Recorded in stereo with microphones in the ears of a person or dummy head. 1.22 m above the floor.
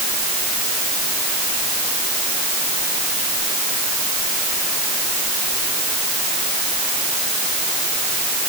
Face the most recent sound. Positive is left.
No sound to turn to.